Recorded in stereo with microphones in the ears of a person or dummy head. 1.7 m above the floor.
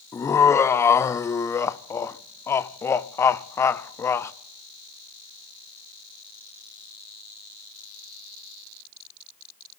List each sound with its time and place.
0.1 s laughter: 20° left (ahead or behind), 0.6 m